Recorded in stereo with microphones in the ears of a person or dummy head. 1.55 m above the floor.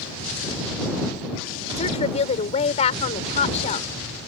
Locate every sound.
1.8 s a woman speaking: 35° left (ahead or behind)